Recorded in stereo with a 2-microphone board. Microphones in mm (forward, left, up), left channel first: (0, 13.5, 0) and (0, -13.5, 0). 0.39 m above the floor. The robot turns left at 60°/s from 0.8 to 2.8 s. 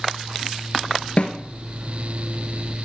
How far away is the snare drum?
About 1.5 m.